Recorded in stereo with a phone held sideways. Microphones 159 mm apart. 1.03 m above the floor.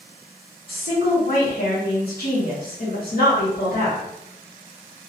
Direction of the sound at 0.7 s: 70° left (ahead or behind).